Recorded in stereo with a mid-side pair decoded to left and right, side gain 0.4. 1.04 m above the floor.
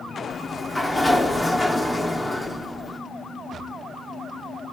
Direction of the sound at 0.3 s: 25° left.